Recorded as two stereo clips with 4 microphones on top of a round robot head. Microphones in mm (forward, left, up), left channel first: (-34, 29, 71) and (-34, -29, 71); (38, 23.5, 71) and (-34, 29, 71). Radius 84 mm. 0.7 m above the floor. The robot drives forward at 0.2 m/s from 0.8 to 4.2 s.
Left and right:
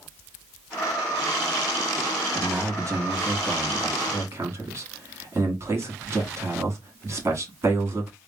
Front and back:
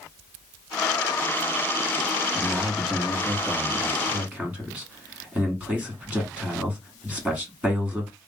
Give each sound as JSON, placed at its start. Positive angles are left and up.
{"t": 2.4, "sound": "a man speaking", "azimuth_deg": -100, "distance_m": 1.3}